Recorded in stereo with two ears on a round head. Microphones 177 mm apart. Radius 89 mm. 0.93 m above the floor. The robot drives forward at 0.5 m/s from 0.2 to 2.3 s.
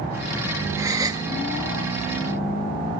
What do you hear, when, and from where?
0.8 s a gasp: 15° right (ahead or behind); by 1.3 s 20° right (ahead or behind)